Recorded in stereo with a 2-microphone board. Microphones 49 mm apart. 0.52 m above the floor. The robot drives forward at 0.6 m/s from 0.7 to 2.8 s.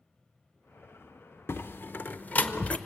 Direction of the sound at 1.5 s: 50° left (ahead or behind).